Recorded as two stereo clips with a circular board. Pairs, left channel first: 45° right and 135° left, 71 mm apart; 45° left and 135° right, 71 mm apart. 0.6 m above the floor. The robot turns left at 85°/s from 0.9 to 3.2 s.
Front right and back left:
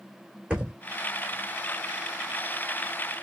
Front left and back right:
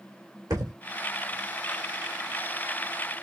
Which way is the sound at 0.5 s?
155° right.